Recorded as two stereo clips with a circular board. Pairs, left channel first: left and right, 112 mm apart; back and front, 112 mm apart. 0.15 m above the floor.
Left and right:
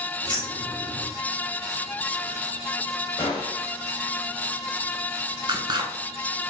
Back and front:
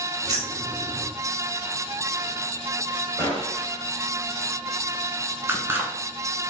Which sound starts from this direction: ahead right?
Scissors, at 5.5 s.